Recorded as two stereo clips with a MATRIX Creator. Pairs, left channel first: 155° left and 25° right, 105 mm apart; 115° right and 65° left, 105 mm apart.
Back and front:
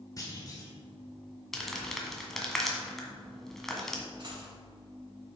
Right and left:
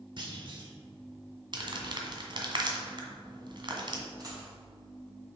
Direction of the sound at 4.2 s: 15° left.